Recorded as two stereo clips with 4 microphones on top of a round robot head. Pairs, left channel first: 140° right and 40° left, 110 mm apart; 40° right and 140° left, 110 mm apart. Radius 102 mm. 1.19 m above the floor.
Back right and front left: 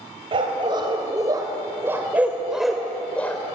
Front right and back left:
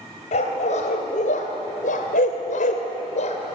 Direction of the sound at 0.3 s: 10° right.